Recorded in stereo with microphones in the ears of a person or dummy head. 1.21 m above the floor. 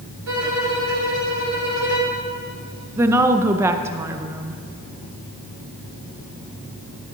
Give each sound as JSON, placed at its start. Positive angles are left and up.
{"t": 0.3, "sound": "a violin", "side_deg": -80, "distance_m": 3.5}
{"t": 3.0, "sound": "a woman speaking", "side_deg": -15, "distance_m": 0.6}